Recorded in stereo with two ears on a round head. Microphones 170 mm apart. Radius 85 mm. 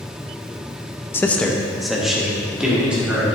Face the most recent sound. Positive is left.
turn(degrees=-10)  # may be behind; listen again after turning